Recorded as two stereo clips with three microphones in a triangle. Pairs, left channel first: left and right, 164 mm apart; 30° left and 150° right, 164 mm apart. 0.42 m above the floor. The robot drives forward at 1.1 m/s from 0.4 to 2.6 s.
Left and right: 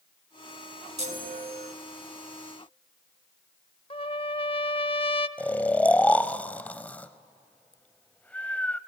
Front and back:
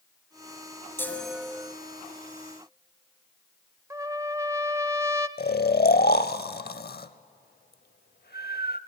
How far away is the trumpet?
About 0.6 m.